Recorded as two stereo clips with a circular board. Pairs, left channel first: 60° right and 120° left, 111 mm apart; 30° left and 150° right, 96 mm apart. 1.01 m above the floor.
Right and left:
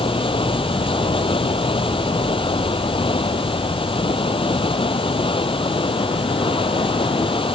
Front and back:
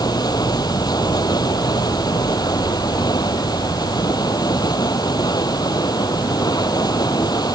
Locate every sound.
0.0 s running water: 20° right